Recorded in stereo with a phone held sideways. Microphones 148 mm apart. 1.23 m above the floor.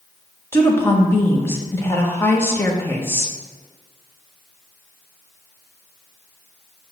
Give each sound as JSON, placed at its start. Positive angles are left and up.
{"t": 0.5, "sound": "a woman speaking", "side_deg": 15, "distance_m": 1.3}